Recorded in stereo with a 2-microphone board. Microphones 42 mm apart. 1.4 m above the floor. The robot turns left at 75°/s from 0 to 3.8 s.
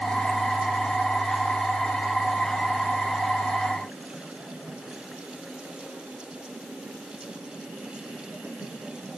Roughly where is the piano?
I don't hear a piano.